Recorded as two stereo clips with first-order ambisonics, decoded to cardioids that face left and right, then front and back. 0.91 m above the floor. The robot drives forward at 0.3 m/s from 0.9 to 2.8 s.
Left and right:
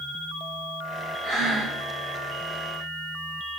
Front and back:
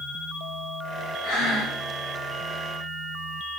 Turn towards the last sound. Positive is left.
turn(degrees=-20)